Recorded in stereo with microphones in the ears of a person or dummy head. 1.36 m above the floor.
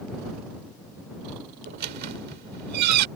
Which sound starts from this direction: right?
A squeak, at 1.7 s.